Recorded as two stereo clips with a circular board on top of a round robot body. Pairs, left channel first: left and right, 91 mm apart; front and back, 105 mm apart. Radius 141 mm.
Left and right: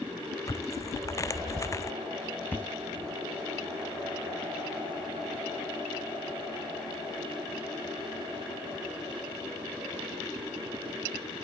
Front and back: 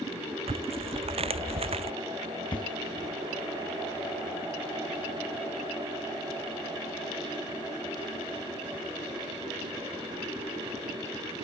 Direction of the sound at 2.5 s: 25° left.